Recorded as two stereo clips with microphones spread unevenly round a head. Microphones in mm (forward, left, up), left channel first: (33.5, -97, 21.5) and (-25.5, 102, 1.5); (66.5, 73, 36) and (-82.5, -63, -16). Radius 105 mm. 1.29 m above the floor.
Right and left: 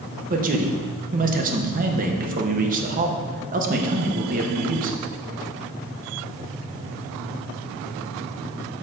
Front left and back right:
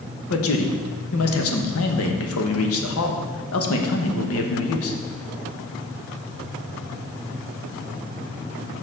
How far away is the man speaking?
About 1.1 m.